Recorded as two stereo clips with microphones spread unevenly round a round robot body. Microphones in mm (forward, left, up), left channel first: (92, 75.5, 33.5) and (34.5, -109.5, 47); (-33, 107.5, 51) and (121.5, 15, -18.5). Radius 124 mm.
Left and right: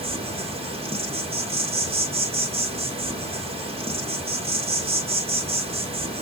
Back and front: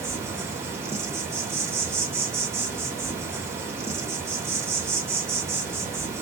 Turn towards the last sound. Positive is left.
turn(degrees=-60)